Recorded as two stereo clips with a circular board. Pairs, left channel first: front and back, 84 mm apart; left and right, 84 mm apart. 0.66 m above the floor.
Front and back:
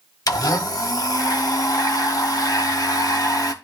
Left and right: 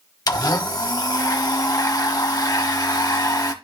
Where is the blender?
45° left, 1.2 m.